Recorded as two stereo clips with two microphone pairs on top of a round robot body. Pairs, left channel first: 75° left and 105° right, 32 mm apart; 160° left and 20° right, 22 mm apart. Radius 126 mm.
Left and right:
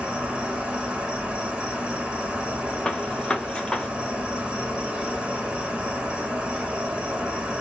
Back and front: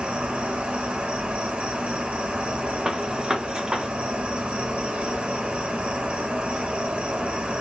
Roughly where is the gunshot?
Ahead left.